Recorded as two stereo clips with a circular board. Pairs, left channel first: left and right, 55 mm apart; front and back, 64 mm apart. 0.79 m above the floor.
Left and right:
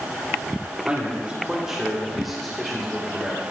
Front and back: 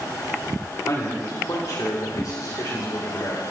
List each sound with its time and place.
0.9 s a man speaking: 25° right, 2.5 m; by 3.4 s 10° left, 3.5 m